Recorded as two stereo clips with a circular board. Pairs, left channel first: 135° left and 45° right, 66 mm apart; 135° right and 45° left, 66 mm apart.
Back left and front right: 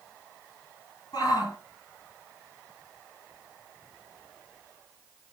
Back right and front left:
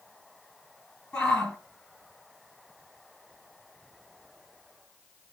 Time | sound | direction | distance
1.1 | a shout | 145° left | 4.5 m